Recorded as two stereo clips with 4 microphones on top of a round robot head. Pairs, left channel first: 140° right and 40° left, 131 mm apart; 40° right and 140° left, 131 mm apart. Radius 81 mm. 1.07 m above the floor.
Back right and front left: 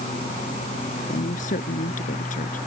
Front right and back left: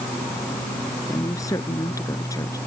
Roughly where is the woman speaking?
Right.